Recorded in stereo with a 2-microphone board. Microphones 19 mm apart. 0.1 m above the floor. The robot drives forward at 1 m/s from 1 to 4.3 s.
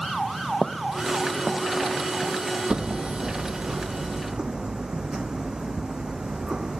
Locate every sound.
0.6 s footsteps: 20° left (ahead or behind); by 2.4 s 5° right (ahead or behind)
2.7 s hammering: 75° right (ahead or behind); by 6.8 s 45° right (ahead or behind)